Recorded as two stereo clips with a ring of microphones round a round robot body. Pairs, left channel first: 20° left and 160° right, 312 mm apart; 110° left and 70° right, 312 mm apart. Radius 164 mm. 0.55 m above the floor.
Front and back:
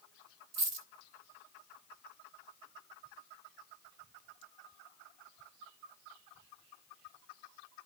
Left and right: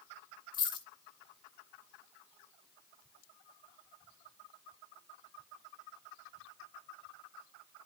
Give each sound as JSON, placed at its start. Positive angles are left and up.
{"t": 0.5, "sound": "a dropped coin", "azimuth_deg": -170, "distance_m": 2.5}